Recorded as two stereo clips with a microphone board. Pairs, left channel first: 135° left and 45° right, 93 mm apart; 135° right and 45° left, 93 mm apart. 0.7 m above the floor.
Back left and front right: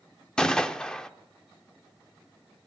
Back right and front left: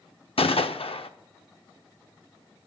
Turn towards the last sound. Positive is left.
turn(degrees=-145)